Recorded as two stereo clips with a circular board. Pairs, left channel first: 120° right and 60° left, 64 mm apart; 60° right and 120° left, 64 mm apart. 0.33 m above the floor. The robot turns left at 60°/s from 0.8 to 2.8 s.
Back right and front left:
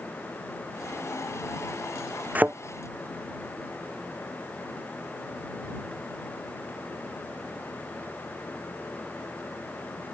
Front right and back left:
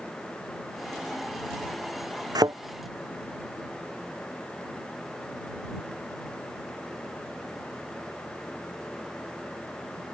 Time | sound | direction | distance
2.4 | a thud | 125° left | ?